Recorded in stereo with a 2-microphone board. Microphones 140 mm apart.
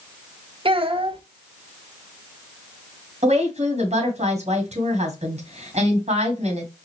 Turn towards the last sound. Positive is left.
turn(degrees=-50)  # may be behind; listen again after turning